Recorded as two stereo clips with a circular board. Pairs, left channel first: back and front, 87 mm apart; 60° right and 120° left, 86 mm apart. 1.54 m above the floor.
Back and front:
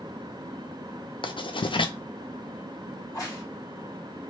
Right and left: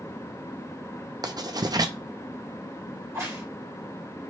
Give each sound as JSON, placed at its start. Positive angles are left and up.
{"t": 1.2, "sound": "writing", "azimuth_deg": 160, "distance_m": 0.5}
{"t": 3.0, "sound": "a crack", "azimuth_deg": 155, "distance_m": 1.4}